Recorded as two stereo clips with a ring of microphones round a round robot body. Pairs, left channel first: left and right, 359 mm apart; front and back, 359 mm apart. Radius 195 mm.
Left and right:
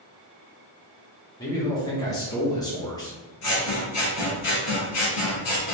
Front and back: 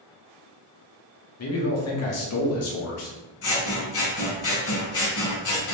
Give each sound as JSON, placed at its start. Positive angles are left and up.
{"t": 1.4, "sound": "a man speaking", "azimuth_deg": 15, "distance_m": 1.0}
{"t": 3.4, "sound": "scissors", "azimuth_deg": 45, "distance_m": 1.4}